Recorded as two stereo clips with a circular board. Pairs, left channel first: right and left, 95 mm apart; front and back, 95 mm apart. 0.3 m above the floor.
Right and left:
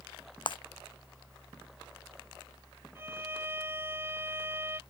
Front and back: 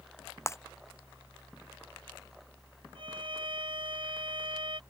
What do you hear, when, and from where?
0.5 s breaking glass: 60° right
3.0 s a violin: 155° left